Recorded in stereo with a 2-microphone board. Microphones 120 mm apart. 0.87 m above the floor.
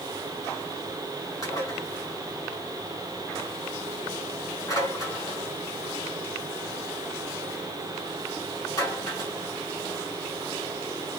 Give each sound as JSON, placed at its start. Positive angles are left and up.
{"t": 1.4, "sound": "dishes clattering", "side_deg": 30, "distance_m": 7.5}